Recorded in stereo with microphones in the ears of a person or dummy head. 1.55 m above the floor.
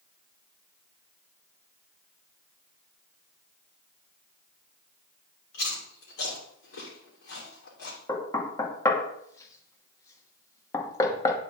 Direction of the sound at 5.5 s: 75° left (ahead or behind).